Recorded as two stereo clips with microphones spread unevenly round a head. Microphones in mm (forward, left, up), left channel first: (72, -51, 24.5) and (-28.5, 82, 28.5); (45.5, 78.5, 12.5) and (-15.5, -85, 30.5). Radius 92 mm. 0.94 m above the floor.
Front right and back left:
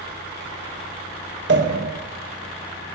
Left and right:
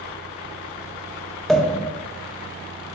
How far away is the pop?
About 1.2 m.